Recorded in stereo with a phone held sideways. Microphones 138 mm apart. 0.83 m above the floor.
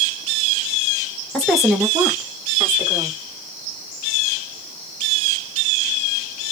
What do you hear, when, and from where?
1.3 s a woman speaking: 5° left (ahead or behind), 1.1 m; by 3.2 s 20° right (ahead or behind), 2 m